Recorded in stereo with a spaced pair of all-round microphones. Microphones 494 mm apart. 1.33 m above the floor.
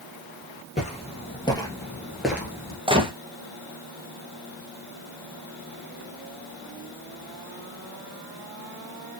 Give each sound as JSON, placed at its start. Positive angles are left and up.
{"t": 0.8, "sound": "footsteps", "side_deg": 15, "distance_m": 1.8}
{"t": 2.9, "sound": "a gunshot", "side_deg": -10, "distance_m": 0.7}